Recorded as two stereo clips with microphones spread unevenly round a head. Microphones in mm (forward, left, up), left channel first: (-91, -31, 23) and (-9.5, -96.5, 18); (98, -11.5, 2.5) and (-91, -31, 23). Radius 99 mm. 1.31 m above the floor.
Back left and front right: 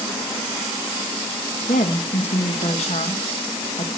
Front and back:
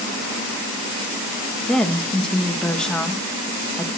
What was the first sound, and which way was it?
A woman speaking, 95° left.